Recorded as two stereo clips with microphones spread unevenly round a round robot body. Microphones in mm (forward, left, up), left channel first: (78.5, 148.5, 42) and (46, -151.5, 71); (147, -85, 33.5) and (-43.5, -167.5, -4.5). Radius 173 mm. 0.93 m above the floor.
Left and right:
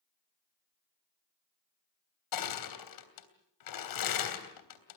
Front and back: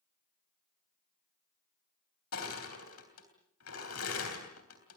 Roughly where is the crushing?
Left.